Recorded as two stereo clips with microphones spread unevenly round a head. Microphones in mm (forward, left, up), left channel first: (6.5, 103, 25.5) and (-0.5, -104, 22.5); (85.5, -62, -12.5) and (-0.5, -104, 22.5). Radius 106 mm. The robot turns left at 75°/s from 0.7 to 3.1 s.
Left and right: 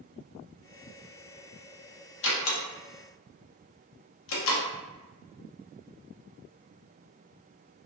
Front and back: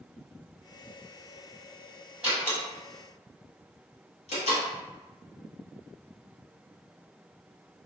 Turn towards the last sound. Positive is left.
turn(degrees=60)